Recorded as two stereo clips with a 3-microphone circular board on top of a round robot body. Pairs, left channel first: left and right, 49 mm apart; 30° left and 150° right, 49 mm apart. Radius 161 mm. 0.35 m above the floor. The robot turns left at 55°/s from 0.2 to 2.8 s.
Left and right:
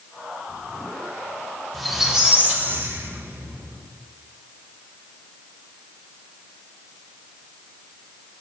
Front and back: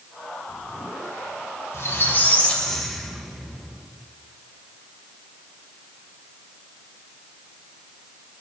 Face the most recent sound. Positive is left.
turn(degrees=-50)